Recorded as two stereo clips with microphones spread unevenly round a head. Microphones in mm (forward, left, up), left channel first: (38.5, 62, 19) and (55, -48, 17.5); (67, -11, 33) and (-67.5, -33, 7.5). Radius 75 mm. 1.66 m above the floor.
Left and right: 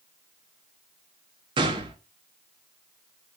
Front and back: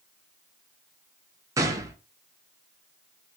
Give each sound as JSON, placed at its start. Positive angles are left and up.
{"t": 1.6, "sound": "a gunshot", "azimuth_deg": -100, "distance_m": 0.6}